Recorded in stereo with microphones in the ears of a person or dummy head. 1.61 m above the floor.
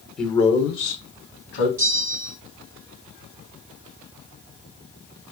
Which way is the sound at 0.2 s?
5° left (ahead or behind).